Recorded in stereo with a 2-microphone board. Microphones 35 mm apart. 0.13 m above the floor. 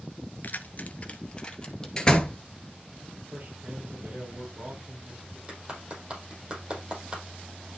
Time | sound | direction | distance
0.4 | keys jangling | 55° left (ahead or behind) | 1.1 m
2.0 | a door slam | 20° left (ahead or behind) | 1.7 m
3.3 | a man speaking | 55° right (ahead or behind) | 3.5 m
5.5 | a clap | 35° right (ahead or behind) | 5 m